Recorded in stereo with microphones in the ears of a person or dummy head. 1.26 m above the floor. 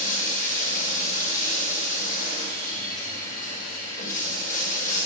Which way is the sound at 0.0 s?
40° left (ahead or behind).